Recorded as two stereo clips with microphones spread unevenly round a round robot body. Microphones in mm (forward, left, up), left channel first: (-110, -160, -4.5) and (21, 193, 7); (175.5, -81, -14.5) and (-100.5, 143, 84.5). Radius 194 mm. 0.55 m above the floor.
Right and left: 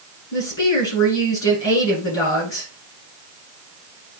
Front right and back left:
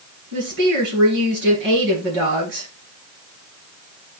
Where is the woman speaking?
155° right, 6.5 m.